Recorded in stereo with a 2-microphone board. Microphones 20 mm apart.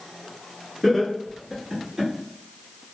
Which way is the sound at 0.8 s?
15° left (ahead or behind).